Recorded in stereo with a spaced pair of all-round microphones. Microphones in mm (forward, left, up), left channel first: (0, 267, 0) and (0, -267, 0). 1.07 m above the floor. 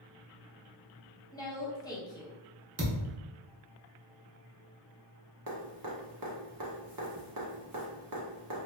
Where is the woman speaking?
5° left (ahead or behind), 0.8 m.